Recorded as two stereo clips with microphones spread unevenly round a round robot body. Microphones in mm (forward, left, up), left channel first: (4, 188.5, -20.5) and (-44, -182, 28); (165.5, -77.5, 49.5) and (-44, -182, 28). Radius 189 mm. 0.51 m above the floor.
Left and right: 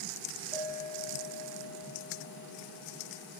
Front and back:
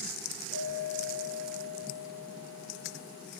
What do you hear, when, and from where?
0.5 s a clink: 125° right, 8 m